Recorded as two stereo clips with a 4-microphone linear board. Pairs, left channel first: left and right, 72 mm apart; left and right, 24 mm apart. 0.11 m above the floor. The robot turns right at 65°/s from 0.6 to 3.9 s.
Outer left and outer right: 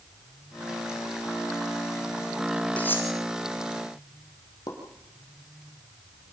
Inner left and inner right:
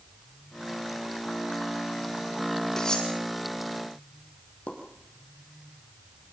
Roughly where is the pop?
Left.